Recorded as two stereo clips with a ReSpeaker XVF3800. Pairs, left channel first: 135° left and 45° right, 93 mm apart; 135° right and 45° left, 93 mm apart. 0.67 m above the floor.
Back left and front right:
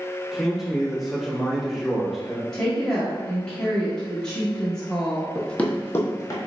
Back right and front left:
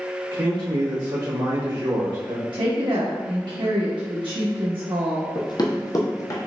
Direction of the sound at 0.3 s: 45° left.